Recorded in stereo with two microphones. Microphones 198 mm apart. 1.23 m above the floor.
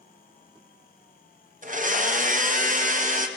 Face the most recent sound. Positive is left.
turn(degrees=-40)  # may be behind; listen again after turning